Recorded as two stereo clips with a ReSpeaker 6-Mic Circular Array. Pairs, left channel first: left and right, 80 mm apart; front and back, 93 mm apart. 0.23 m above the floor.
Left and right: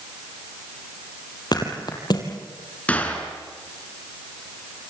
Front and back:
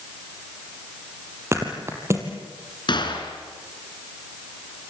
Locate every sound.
1.5 s a thud: 120° left, 3.5 m
2.9 s a gunshot: 20° left, 3.5 m